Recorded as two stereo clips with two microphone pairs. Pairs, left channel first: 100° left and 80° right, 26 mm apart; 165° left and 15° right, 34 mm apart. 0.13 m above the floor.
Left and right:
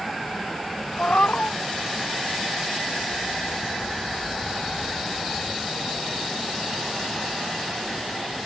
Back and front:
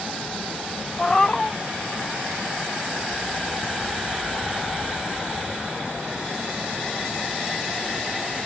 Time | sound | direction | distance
1.0 | a cat meowing | 90° left | ?